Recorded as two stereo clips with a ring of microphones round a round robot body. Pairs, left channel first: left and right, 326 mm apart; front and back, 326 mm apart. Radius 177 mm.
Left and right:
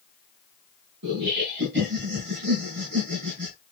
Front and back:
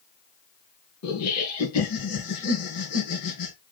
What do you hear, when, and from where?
1.0 s laughter: 35° right, 3.5 m